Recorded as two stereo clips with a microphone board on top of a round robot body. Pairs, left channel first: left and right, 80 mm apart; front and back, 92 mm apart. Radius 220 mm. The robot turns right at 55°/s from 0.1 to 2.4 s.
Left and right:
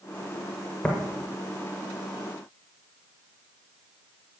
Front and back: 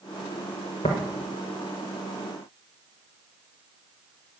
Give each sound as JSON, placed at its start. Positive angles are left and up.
{"t": 0.8, "sound": "tapping", "azimuth_deg": 20, "distance_m": 0.6}